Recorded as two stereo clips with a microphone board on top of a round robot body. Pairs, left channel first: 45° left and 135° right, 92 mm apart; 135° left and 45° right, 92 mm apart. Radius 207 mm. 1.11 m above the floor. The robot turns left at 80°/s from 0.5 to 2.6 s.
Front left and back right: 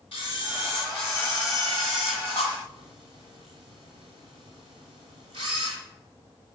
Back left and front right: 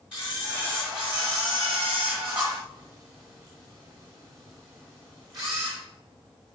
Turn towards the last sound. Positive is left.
turn(degrees=-130)